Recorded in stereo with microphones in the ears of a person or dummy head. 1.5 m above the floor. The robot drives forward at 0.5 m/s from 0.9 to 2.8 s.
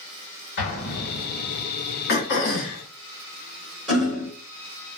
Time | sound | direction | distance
0.6 | an explosion | 60° left (ahead or behind) | 1.2 m
2.1 | throat clearing | 65° left (ahead or behind) | 0.8 m
3.9 | hammering | 5° right (ahead or behind) | 1.6 m